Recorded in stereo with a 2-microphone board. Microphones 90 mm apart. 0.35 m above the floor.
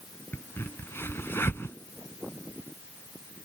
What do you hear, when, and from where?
0.3 s a crack: 30° left (ahead or behind)